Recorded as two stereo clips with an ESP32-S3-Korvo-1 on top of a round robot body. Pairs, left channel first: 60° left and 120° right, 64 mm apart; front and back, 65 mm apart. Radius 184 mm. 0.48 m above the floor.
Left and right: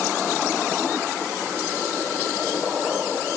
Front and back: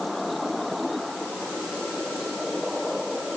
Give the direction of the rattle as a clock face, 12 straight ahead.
No rattle in this recording.